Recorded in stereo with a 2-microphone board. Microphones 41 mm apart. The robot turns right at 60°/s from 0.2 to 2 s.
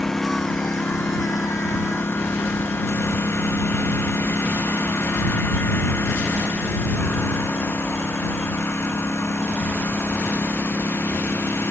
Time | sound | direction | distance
0.0 | a lawn mower | 10° left (ahead or behind) | ?